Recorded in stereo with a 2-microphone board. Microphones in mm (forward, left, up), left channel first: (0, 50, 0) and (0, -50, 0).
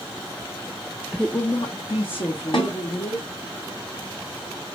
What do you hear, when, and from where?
1.1 s a woman speaking: 10° right (ahead or behind), 0.5 m; by 3.3 s 75° left (ahead or behind), 3.5 m
2.5 s a snare drum: 60° left (ahead or behind), 3.5 m